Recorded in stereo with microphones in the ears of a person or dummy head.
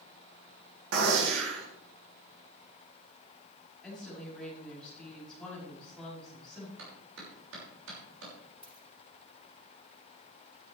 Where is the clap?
75° right (ahead or behind), 6 m.